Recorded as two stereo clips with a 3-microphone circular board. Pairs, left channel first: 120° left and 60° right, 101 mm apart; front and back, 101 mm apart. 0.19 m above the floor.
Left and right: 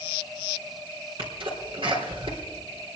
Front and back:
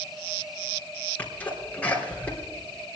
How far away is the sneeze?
About 4 m.